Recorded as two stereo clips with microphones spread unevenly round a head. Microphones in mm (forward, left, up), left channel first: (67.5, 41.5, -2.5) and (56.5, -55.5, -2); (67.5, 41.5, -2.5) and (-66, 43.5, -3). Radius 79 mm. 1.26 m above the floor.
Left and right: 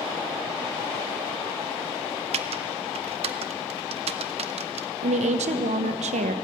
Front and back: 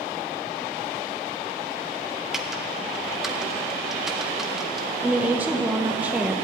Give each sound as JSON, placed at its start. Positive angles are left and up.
{"t": 2.3, "sound": "typing on a keyboard", "azimuth_deg": -95, "distance_m": 0.5}
{"t": 5.0, "sound": "a woman speaking", "azimuth_deg": -100, "distance_m": 0.8}